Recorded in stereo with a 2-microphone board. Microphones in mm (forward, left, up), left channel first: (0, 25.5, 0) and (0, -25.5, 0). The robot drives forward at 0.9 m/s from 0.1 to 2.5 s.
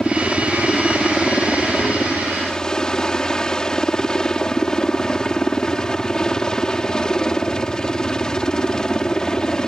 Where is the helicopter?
10° left (ahead or behind); by 9.7 s 15° left (ahead or behind).